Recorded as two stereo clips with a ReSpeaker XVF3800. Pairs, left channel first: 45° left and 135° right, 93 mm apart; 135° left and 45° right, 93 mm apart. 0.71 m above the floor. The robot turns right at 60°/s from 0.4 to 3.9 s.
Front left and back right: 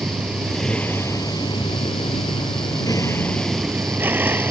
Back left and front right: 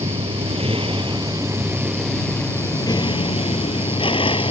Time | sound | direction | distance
0.0 | a vehicle | 55° right | ?